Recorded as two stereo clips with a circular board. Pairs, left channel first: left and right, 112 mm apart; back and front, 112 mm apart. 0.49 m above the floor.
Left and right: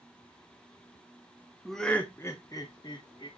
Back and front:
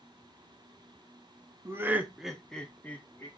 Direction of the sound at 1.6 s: Straight ahead.